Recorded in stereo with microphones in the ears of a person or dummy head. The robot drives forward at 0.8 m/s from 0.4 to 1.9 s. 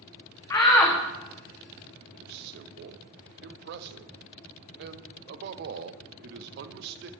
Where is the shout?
20° left (ahead or behind), 0.6 m; by 1.0 s 10° left (ahead or behind), 1.0 m.